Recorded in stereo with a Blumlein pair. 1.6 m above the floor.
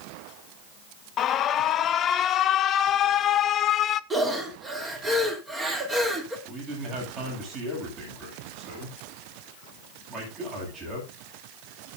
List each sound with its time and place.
1.2 s an alarm: 30° left, 0.8 m
4.1 s breathing: 15° right, 3 m
6.5 s a man speaking: 30° right, 9 m